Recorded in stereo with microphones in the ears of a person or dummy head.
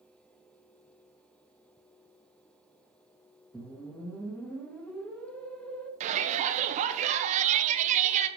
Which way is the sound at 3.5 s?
5° left (ahead or behind).